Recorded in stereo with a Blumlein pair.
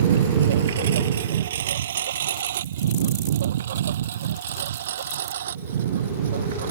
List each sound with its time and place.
0.0 s a lawn mower: 60° right